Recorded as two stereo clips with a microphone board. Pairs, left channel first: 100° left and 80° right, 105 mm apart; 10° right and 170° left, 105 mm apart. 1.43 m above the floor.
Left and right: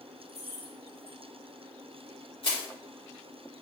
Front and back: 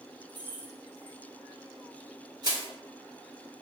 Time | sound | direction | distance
0.3 | keys jangling | 100° left | 2 m
2.4 | crushing | 125° left | 2.5 m